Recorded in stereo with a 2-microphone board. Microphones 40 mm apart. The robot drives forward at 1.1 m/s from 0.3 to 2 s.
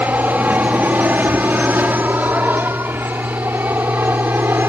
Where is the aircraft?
45° right (ahead or behind); by 4.7 s 60° right (ahead or behind).